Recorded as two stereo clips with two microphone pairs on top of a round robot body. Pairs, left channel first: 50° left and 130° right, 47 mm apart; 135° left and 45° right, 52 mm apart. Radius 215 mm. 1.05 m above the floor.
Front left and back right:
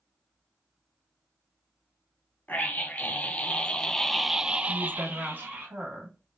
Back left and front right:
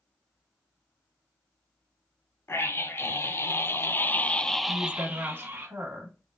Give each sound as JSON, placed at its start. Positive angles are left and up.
{"t": 2.5, "sound": "a scream", "azimuth_deg": 105, "distance_m": 1.5}
{"t": 4.7, "sound": "a woman speaking", "azimuth_deg": -85, "distance_m": 2.0}